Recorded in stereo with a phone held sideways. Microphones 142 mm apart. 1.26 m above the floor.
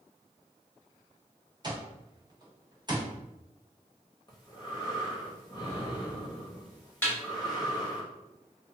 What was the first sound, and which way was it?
An alarm clock, 30° right (ahead or behind).